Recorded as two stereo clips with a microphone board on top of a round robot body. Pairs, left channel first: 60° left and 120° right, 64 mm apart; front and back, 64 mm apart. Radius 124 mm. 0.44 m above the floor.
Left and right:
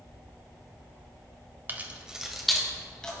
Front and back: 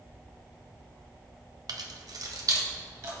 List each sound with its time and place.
1.7 s keys jangling: straight behind, 1.4 m; by 3.2 s 135° left, 3 m